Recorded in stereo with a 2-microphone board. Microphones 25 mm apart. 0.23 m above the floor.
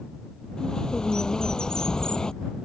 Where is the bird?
25° left (ahead or behind).